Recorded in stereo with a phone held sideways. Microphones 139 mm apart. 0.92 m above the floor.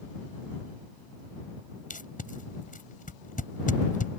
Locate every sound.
1.9 s tape being pulled: 75° left (ahead or behind)